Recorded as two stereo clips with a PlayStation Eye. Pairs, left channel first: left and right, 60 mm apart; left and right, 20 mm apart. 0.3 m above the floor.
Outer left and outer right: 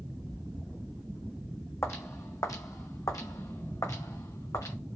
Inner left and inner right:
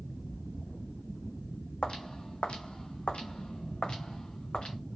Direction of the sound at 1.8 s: 50° left (ahead or behind).